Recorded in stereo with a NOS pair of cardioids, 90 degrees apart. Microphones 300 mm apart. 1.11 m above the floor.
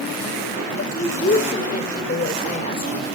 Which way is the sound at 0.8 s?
25° left.